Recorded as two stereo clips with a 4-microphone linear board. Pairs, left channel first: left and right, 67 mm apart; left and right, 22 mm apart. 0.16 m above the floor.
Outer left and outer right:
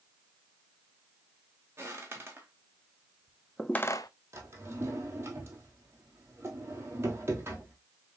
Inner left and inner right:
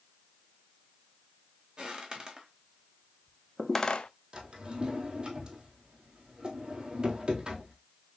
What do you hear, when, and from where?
1.8 s footsteps: 35° right (ahead or behind), 2.5 m; by 4.1 s 70° left (ahead or behind), 0.5 m
4.3 s a drawer: 40° right (ahead or behind), 1.7 m